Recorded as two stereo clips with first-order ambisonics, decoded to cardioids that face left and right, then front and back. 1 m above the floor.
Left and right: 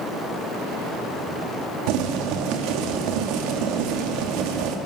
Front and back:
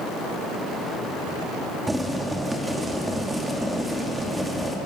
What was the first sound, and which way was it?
Boiling, 95° right.